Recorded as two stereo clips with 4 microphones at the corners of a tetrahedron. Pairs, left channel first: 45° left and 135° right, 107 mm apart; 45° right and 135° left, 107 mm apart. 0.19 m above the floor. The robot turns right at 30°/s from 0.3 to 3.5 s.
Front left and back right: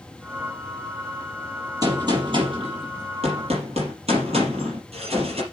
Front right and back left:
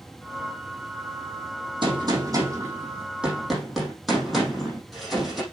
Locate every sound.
1.8 s a gunshot: 175° left, 5 m; by 5.4 s 135° right, 5 m